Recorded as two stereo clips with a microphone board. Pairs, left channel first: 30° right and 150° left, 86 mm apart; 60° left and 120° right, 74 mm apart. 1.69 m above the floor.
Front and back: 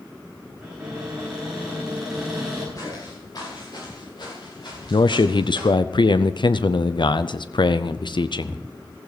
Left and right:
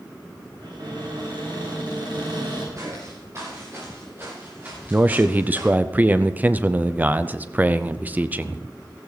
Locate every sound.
0.6 s a cupboard door: 125° right, 9.5 m
2.8 s footsteps: 75° right, 9 m; by 5.7 s 50° right, 9.5 m
4.9 s a man speaking: 55° right, 0.5 m